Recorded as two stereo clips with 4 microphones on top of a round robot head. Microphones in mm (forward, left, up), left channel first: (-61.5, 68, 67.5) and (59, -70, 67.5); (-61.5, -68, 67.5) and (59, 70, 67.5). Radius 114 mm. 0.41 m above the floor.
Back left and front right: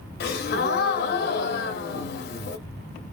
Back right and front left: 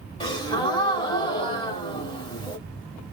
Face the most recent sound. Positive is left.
turn(degrees=165)